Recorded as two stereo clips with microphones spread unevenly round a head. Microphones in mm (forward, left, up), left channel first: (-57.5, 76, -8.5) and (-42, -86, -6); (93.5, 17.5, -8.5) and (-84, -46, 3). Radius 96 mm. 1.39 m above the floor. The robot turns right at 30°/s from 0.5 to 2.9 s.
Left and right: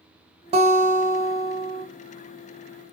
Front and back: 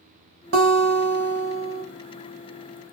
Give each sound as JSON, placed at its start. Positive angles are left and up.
{"t": 0.5, "sound": "a guitar", "azimuth_deg": -135, "distance_m": 1.2}